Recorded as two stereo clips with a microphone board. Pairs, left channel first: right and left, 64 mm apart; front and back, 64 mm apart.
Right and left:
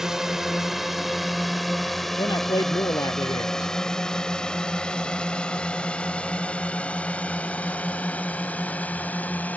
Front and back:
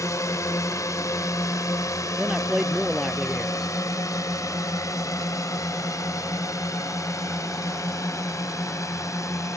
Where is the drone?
10° left; by 9.6 s 25° right.